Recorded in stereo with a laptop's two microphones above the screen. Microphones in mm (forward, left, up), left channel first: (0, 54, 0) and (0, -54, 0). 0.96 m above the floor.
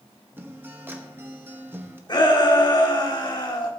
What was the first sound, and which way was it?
A guitar, 20° right (ahead or behind).